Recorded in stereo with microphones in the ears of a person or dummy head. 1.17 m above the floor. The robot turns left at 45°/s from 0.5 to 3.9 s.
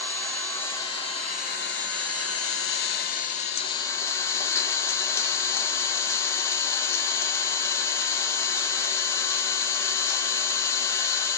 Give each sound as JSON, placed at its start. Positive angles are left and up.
{"t": 0.0, "sound": "an engine running", "azimuth_deg": 175, "distance_m": 0.9}